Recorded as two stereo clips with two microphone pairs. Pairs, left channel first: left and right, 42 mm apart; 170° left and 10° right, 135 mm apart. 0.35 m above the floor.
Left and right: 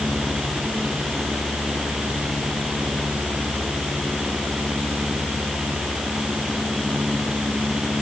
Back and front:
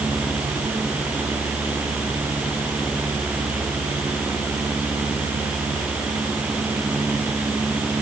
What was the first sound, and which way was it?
Only background noise.